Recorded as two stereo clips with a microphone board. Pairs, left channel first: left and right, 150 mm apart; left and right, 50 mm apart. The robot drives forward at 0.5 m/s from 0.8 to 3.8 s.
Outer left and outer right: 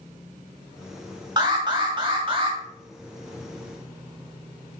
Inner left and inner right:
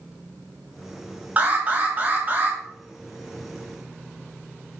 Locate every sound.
1.4 s an alarm: 30° right (ahead or behind), 2 m; by 2.6 s 35° right (ahead or behind), 1.7 m